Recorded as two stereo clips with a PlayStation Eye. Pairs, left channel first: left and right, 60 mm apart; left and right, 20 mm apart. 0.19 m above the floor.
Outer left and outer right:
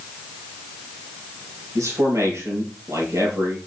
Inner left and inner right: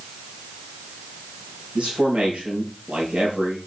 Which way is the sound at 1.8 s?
60° right (ahead or behind).